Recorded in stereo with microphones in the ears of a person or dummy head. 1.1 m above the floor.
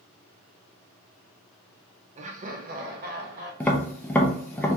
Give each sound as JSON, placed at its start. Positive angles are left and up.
{"t": 2.2, "sound": "laughter", "side_deg": -30, "distance_m": 0.6}
{"t": 3.6, "sound": "tapping", "side_deg": 5, "distance_m": 0.7}